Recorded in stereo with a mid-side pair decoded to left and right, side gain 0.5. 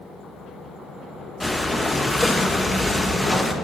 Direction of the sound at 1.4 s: 10° left.